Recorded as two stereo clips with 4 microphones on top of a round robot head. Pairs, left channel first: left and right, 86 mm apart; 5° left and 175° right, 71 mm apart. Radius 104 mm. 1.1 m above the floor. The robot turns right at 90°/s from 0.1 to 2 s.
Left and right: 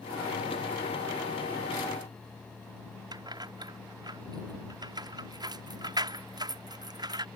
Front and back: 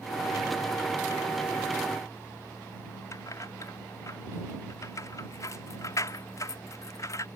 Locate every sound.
3.1 s keys jangling: 50° right